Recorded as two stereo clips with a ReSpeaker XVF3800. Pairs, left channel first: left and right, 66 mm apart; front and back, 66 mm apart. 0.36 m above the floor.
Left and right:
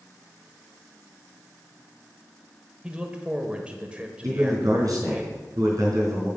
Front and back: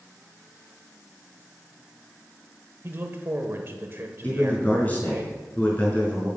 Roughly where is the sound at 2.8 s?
Behind right.